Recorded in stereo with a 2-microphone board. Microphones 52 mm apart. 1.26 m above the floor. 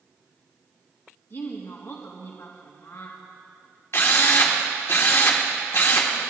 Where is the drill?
55° left (ahead or behind), 1.5 m.